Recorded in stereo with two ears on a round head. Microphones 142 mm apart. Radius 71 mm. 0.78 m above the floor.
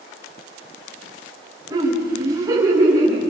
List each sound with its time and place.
1.7 s laughter: 25° right (ahead or behind), 6.5 m